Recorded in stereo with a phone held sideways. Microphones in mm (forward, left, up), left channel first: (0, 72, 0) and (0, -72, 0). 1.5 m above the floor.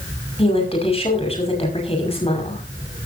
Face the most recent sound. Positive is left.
turn(degrees=40)  # may be behind; listen again after turning